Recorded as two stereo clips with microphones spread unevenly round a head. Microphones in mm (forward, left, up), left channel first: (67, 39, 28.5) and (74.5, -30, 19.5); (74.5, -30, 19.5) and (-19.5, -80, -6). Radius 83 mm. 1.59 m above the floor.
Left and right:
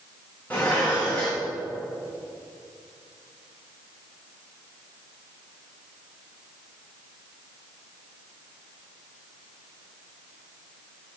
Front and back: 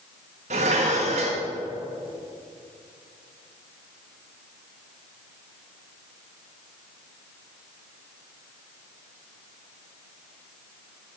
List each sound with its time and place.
0.5 s dishes clattering: 170° left, 1.3 m